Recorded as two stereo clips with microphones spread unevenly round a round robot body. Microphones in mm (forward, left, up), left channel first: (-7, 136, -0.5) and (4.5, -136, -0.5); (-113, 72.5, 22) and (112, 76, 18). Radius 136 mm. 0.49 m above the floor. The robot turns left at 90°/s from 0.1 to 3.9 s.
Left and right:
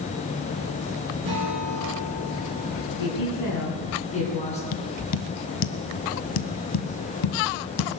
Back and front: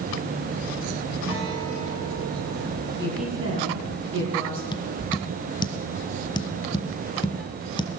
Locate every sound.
1.2 s a guitar: 75° right, 10 m; by 3.4 s 90° left, 10 m
3.0 s a woman speaking: 110° left, 6 m; by 4.6 s 25° left, 6 m
4.7 s tapping: 110° left, 1.1 m